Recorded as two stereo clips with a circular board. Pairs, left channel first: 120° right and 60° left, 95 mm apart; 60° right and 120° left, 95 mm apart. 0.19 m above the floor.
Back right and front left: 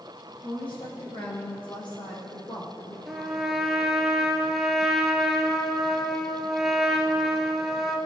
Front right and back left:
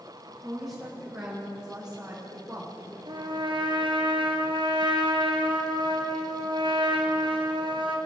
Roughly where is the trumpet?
Behind left.